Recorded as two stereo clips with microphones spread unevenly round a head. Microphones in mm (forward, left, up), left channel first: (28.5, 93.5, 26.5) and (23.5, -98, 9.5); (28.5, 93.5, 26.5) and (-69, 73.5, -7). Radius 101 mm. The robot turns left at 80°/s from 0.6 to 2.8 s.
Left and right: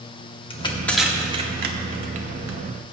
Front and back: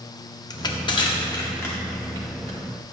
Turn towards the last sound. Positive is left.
turn(degrees=-145)